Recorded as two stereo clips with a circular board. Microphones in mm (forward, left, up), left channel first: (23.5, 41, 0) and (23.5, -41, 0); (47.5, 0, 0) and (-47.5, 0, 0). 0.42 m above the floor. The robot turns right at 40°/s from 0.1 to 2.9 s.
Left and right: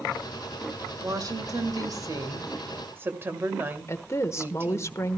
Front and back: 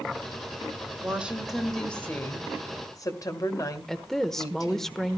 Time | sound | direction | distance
1.0 | a woman speaking | 110° right | 2.0 m
3.9 | a woman speaking | 85° left | 0.9 m